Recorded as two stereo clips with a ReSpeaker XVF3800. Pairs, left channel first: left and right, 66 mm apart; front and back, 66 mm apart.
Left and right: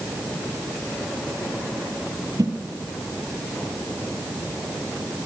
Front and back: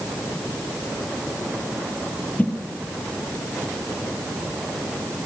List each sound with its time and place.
2.4 s a whoosh: 65° right, 5 m